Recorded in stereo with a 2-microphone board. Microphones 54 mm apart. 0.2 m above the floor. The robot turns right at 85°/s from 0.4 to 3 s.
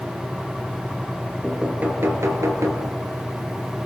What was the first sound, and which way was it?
Knocking, 5° right (ahead or behind).